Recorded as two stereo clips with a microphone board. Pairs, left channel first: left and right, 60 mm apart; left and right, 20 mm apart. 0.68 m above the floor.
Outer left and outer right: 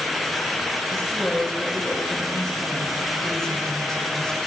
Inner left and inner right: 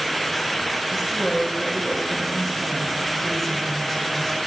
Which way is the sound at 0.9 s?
10° left (ahead or behind).